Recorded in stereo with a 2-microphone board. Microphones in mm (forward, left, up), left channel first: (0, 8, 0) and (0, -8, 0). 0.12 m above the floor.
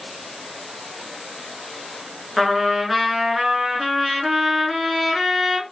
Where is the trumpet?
10° right (ahead or behind), 1.0 m.